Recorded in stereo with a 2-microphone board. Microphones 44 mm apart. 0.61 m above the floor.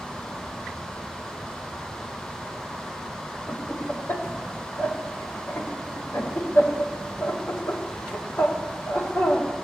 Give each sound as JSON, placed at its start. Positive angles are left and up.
{"t": 3.5, "sound": "laughter", "side_deg": 55, "distance_m": 1.9}